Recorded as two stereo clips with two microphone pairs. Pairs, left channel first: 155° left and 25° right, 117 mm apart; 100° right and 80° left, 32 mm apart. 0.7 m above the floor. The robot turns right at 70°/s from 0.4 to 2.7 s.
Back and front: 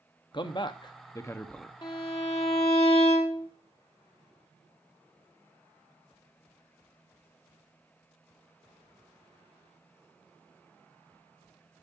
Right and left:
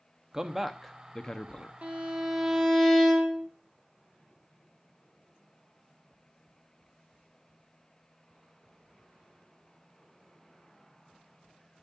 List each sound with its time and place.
0.3 s a man speaking: 145° left, 0.6 m; by 1.7 s 125° right, 0.6 m
1.8 s a violin: 110° left, 1.6 m; by 3.5 s 175° left, 1.6 m